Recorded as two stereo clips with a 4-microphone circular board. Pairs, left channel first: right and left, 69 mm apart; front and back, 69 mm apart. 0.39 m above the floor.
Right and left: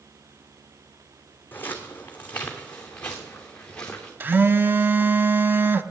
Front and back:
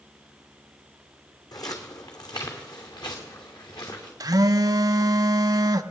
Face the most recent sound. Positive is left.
turn(degrees=150)